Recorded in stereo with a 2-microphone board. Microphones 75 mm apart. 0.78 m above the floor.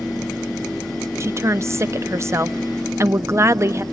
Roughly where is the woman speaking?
Right.